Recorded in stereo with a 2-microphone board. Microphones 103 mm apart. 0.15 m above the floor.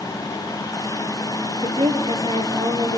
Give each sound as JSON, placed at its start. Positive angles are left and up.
{"t": 1.6, "sound": "a woman speaking", "side_deg": -65, "distance_m": 2.5}